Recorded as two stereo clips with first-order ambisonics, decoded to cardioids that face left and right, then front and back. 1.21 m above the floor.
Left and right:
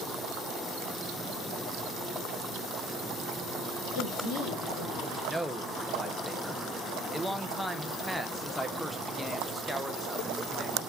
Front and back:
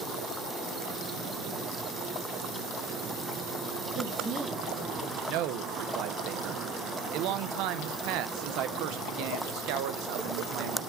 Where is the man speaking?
Straight behind, 0.6 m.